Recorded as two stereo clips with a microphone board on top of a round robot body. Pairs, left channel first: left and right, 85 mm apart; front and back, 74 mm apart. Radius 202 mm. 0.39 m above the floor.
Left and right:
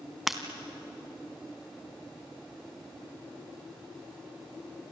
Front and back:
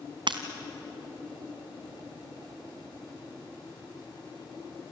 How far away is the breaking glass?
About 1.2 m.